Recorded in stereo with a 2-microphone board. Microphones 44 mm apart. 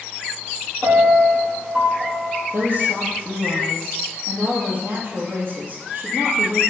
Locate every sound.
0.8 s a piano: 40° right (ahead or behind), 4 m
2.5 s a woman speaking: 50° right (ahead or behind), 3 m